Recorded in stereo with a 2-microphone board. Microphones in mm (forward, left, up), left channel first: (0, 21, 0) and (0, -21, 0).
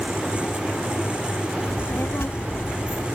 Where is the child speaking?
70° left (ahead or behind), 0.7 m.